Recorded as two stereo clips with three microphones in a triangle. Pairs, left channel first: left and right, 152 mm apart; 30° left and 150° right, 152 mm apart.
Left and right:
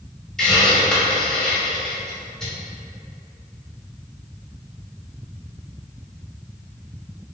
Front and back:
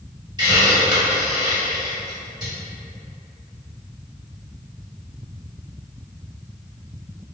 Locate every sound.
0.4 s a hiss: 175° left, 1.3 m